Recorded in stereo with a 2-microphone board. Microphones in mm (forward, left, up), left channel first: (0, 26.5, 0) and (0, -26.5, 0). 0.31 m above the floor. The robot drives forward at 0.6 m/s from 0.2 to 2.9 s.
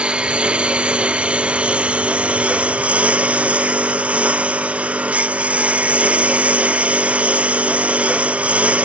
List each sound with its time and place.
0.0 s a lawn mower: 20° right (ahead or behind); by 8.8 s 25° right (ahead or behind)